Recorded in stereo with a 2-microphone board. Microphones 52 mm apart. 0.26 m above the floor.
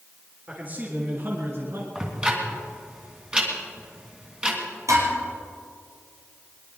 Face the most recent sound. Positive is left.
turn(degrees=-80)